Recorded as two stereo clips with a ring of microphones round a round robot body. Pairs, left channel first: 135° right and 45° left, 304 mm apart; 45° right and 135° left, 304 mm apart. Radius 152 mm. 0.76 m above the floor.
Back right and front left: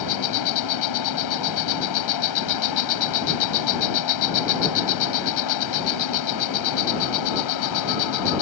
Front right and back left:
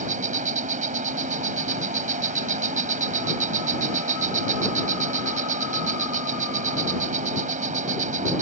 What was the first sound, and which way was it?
An insect, 160° right.